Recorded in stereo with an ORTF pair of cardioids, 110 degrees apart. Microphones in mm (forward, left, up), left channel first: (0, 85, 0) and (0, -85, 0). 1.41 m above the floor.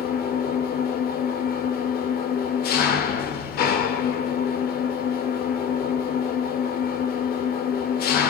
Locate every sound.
0.0 s an engine running: 70° left, 3 m